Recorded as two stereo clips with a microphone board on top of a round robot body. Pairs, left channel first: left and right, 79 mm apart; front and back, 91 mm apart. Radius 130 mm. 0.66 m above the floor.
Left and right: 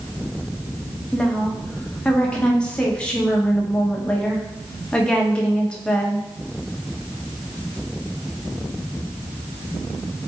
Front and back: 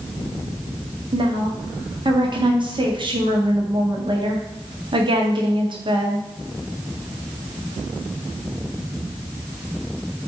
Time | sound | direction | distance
1.1 | a woman speaking | 165° left | 1.6 m